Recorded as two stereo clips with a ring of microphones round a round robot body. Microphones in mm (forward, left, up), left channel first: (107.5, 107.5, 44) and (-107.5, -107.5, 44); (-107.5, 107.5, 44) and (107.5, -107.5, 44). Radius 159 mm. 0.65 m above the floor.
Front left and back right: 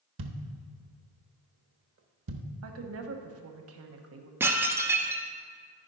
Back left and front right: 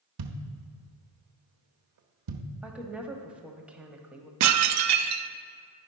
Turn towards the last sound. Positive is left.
turn(degrees=-55)